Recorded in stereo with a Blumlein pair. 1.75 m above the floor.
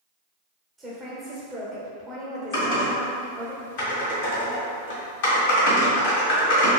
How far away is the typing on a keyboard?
About 1.7 m.